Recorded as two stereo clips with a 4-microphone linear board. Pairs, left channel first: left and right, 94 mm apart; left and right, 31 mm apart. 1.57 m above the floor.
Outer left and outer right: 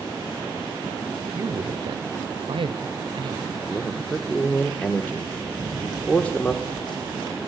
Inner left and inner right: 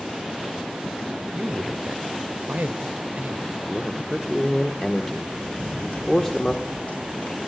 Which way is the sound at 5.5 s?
45° left (ahead or behind).